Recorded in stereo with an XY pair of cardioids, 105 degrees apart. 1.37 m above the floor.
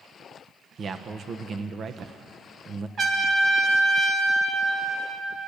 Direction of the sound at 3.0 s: 50° right.